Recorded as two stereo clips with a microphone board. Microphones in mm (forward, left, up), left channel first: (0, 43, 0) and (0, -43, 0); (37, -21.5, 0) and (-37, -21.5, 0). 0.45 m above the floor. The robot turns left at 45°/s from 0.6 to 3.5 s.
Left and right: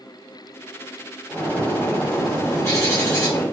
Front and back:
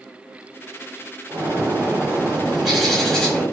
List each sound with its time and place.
1.3 s a bird: 160° left, 1.3 m; by 3.4 s 60° left, 1.3 m